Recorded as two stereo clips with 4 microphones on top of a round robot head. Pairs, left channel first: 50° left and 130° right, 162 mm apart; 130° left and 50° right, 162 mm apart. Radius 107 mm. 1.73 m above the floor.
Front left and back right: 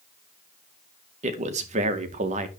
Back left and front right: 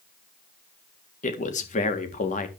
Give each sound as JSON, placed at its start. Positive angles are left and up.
{"t": 1.2, "sound": "a man speaking", "azimuth_deg": 180, "distance_m": 1.9}